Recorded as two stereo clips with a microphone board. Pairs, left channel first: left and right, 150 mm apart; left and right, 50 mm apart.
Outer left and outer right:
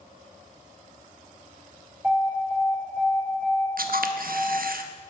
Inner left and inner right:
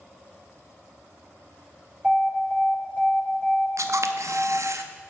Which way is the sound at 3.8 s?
80° right.